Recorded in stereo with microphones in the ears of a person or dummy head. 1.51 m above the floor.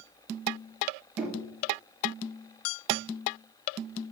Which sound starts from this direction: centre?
Knocking, at 1.2 s.